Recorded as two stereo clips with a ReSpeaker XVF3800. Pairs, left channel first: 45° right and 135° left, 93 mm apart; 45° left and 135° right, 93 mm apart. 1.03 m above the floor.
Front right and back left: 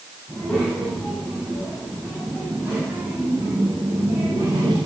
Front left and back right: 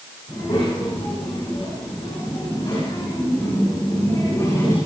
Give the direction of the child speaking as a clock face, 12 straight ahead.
11 o'clock.